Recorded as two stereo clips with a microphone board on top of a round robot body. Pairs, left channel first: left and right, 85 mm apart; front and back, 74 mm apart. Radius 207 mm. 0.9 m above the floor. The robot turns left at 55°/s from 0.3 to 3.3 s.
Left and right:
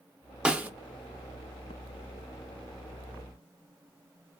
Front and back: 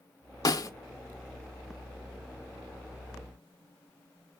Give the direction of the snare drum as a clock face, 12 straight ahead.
12 o'clock.